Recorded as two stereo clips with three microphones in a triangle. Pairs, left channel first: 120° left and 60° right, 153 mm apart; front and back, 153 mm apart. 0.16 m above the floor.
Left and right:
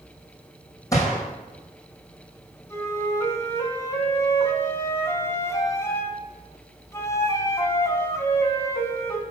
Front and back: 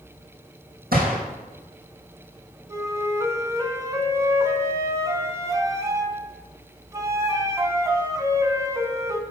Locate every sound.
0.9 s a gunshot: 170° right, 2.5 m
2.7 s a flute: 155° left, 0.8 m